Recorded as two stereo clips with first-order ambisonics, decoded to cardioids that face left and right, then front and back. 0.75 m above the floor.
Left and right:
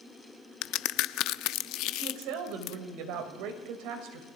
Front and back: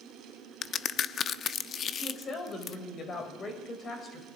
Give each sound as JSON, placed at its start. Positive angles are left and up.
{"t": 0.6, "sound": "a crack", "azimuth_deg": 60, "distance_m": 0.5}
{"t": 1.9, "sound": "a woman speaking", "azimuth_deg": -65, "distance_m": 3.5}